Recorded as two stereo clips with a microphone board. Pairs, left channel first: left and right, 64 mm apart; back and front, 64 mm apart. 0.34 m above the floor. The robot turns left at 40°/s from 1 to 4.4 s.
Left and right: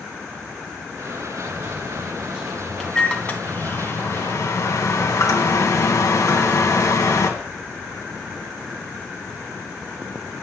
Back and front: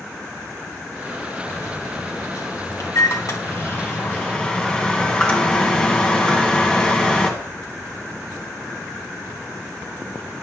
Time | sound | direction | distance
1.5 | a microwave | 135° right | 2 m